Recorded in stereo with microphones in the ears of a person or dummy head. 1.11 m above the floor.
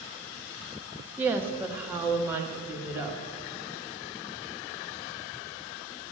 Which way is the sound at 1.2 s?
10° right (ahead or behind).